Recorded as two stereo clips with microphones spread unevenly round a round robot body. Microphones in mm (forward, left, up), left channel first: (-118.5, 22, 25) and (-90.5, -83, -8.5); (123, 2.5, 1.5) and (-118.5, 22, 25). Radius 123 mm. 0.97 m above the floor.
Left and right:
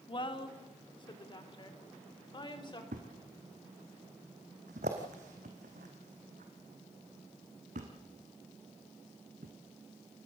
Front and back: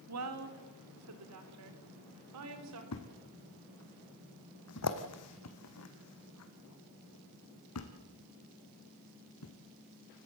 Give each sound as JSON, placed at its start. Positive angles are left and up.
{"t": 0.1, "sound": "a woman speaking", "azimuth_deg": 150, "distance_m": 2.5}
{"t": 2.9, "sound": "a thud", "azimuth_deg": -30, "distance_m": 2.0}